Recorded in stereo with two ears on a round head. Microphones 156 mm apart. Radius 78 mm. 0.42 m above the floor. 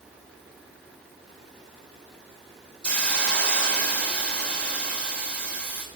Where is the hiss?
5° left (ahead or behind), 1.7 m.